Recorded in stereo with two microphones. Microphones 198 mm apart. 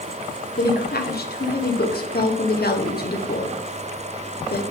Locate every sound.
0.6 s a woman speaking: 50° left (ahead or behind), 1.1 m